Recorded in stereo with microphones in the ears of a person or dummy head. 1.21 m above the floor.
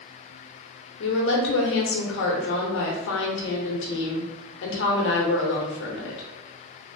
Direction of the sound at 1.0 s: 75° left (ahead or behind).